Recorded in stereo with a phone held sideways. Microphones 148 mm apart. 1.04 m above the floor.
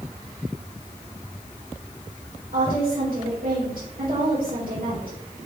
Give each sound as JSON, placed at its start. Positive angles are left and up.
{"t": 2.5, "sound": "a woman speaking", "side_deg": -80, "distance_m": 4.0}